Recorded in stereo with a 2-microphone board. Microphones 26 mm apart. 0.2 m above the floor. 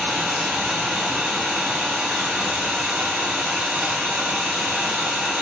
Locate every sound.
0.0 s an engine running: 40° right (ahead or behind), 1.6 m